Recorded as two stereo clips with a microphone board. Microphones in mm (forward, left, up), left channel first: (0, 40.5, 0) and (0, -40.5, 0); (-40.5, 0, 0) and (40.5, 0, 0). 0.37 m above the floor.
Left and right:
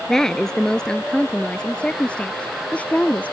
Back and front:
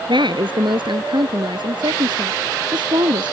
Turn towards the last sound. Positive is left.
turn(degrees=20)